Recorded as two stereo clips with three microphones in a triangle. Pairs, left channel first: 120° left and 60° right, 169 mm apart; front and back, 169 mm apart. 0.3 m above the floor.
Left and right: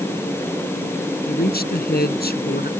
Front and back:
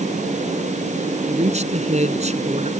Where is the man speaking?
135° left.